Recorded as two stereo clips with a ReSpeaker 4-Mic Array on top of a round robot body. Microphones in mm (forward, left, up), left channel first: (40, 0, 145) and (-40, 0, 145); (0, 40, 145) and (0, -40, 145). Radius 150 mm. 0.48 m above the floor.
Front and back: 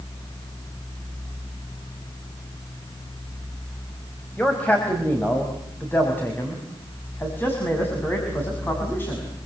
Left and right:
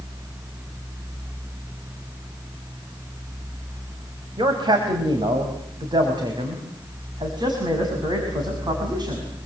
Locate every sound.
4.4 s a man speaking: 70° right, 4.5 m; by 9.3 s 60° right, 7 m